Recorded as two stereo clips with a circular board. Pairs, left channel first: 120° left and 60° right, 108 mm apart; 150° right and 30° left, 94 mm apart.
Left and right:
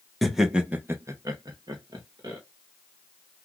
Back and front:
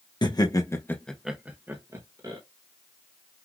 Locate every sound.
0.2 s laughter: 150° right, 1.2 m; by 2.4 s 15° right, 1.7 m